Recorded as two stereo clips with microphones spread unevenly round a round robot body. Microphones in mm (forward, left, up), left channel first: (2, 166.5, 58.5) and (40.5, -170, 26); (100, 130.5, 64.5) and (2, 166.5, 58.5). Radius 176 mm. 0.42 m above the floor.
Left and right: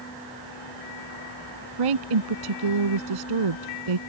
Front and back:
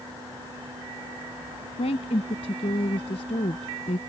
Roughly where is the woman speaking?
Right.